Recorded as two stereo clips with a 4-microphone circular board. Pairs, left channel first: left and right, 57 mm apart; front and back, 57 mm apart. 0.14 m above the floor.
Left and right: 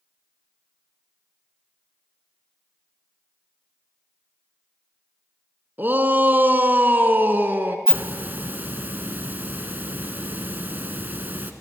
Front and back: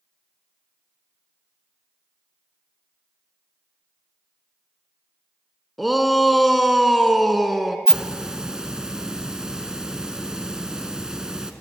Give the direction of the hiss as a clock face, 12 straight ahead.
4 o'clock.